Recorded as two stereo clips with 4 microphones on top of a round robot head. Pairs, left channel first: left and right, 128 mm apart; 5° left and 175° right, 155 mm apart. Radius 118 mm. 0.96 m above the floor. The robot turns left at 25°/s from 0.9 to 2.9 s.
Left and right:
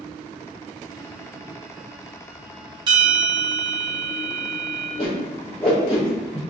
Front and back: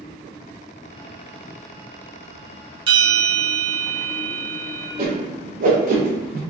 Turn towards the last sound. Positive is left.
turn(degrees=155)